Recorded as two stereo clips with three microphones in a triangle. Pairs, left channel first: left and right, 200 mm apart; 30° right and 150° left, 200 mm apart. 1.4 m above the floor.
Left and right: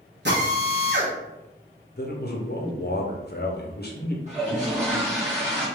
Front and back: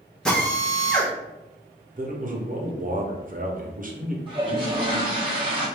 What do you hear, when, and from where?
0.2 s a drill: 115° right, 1.0 m
2.0 s a man speaking: 115° left, 0.7 m
4.3 s a toilet flushing: 145° right, 1.5 m